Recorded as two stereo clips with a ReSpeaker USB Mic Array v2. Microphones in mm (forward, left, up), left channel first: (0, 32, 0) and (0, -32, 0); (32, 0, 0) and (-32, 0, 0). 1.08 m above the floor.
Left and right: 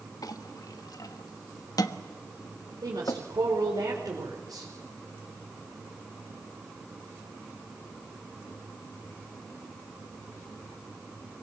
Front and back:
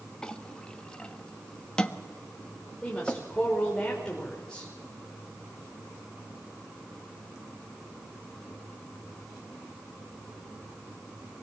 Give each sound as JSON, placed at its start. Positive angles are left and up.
{"t": 0.2, "sound": "a clink", "azimuth_deg": 75, "distance_m": 1.2}
{"t": 2.8, "sound": "a woman speaking", "azimuth_deg": -80, "distance_m": 5.0}